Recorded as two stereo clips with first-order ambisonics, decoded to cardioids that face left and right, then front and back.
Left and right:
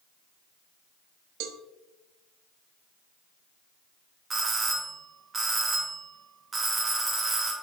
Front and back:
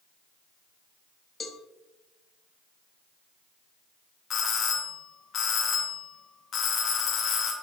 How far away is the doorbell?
About 1.0 m.